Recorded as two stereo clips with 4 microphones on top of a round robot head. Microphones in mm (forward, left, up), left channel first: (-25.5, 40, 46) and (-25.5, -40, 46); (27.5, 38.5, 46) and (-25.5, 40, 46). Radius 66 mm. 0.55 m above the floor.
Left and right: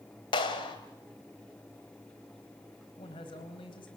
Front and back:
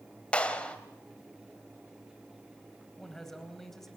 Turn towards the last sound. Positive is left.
turn(degrees=85)